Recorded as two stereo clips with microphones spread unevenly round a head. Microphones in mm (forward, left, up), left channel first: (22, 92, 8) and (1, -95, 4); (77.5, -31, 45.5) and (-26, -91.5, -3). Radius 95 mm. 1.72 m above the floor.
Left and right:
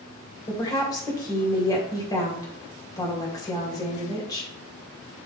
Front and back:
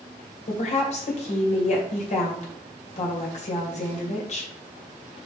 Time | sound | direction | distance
0.5 | a woman speaking | 15° left | 2 m